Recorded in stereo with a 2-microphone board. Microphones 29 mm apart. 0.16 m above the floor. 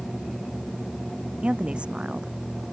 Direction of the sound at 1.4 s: 45° right (ahead or behind).